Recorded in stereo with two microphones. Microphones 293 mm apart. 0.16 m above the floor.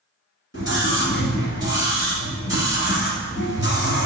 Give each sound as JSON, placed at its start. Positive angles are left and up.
{"t": 0.5, "sound": "a scream", "side_deg": 45, "distance_m": 1.6}